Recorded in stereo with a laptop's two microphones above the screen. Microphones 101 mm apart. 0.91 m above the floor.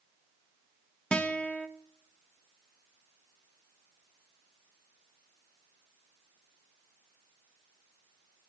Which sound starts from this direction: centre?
A guitar, at 1.1 s.